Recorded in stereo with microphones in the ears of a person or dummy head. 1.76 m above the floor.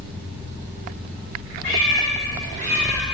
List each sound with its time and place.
1.6 s a cat meowing: 40° left (ahead or behind), 1.7 m; by 3.0 s 5° left (ahead or behind), 1.4 m